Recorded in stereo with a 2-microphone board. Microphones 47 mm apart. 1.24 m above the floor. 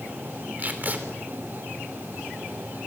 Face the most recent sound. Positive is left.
turn(degrees=-35)  # may be behind; listen again after turning